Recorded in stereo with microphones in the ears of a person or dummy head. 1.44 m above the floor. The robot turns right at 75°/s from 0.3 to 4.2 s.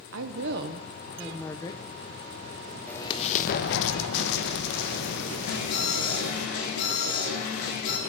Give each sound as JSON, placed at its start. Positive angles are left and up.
{"t": 0.1, "sound": "a woman speaking", "azimuth_deg": -80, "distance_m": 1.1}
{"t": 2.9, "sound": "an explosion", "azimuth_deg": 10, "distance_m": 0.9}
{"t": 5.5, "sound": "an alarm", "side_deg": 60, "distance_m": 5.0}